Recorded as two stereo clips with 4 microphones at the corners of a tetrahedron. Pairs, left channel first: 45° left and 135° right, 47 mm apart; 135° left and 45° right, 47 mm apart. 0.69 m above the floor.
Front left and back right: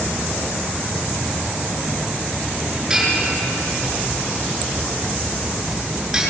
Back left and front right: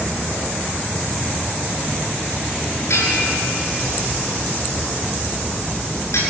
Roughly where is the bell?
Behind left.